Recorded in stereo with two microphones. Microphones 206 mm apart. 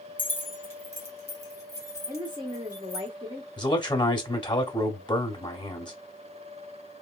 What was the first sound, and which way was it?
Keys jangling, 10° left (ahead or behind).